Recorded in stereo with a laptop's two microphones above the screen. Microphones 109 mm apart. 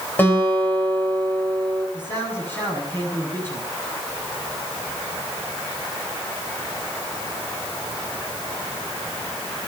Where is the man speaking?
20° left (ahead or behind), 7.5 m.